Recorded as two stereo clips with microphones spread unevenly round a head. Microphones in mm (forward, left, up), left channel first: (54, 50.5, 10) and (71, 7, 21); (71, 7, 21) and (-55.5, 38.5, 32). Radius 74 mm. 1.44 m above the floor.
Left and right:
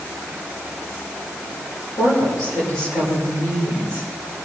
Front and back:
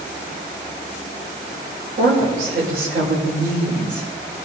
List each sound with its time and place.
2.0 s a woman speaking: 150° left, 7 m